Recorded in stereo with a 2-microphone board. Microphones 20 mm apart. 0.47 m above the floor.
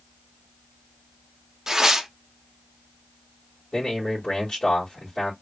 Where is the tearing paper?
25° right (ahead or behind), 0.5 m.